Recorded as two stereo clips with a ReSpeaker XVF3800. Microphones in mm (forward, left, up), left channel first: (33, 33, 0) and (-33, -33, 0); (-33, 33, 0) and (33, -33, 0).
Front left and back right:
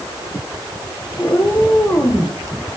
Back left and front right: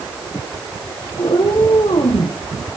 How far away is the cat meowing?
About 5.5 m.